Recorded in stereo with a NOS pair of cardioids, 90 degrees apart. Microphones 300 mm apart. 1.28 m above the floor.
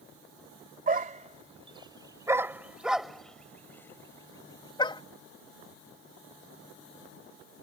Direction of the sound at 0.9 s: 30° right.